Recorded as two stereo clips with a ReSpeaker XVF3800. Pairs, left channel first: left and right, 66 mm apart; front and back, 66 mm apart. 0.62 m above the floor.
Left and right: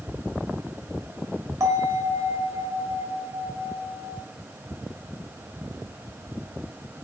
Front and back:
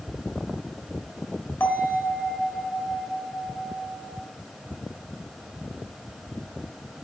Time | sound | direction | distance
1.6 | a bell | 55° right | 1.3 m